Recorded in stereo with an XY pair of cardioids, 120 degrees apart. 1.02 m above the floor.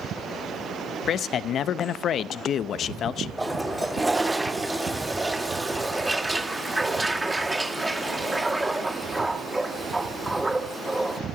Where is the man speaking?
55° left, 0.7 m.